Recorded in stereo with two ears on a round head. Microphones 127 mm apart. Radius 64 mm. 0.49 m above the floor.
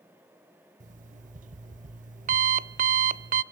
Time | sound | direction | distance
0.8 | an alarm clock | 55° right (ahead or behind) | 0.6 m